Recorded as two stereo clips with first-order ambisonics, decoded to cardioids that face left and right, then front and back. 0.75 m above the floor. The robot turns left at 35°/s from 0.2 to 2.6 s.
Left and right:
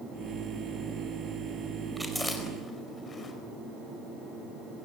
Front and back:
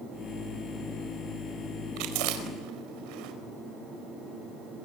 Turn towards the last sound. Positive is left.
turn(degrees=160)